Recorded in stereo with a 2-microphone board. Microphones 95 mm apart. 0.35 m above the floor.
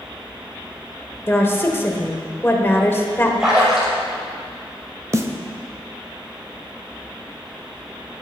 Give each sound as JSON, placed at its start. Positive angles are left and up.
{"t": 1.3, "sound": "a woman speaking", "side_deg": 25, "distance_m": 0.9}
{"t": 3.4, "sound": "a splash", "side_deg": -10, "distance_m": 3.5}
{"t": 5.1, "sound": "a snare drum", "side_deg": -30, "distance_m": 0.6}